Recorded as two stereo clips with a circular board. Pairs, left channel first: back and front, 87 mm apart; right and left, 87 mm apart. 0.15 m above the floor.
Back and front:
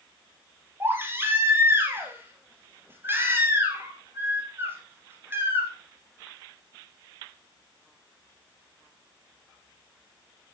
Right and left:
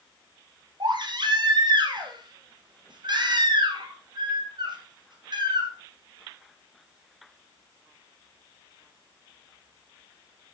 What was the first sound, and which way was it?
A baby crying, 65° left.